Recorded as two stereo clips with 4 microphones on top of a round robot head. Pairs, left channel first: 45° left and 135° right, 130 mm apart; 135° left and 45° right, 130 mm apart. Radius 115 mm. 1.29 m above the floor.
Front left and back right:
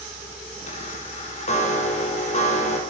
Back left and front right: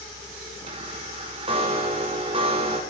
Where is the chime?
5° left, 5.5 m.